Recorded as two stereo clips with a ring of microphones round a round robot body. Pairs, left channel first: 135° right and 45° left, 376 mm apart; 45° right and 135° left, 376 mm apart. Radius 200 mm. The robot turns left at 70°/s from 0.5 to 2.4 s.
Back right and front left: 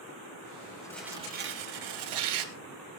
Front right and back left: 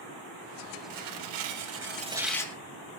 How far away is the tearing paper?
About 3 m.